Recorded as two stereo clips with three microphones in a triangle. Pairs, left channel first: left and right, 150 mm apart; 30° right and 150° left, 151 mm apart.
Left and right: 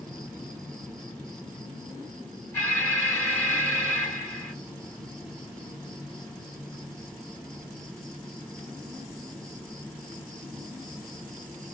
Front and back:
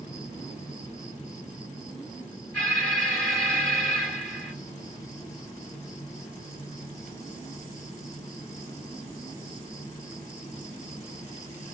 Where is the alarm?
40° left, 2.5 m.